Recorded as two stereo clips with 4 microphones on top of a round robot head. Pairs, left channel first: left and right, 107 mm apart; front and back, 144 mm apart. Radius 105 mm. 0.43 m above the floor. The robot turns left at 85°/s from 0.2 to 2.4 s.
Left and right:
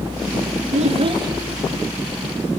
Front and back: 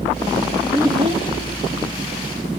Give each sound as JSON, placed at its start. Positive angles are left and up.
{"t": 0.7, "sound": "a child speaking", "azimuth_deg": -100, "distance_m": 1.5}